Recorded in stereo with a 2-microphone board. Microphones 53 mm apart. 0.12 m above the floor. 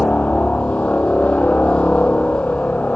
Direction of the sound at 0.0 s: 25° left (ahead or behind).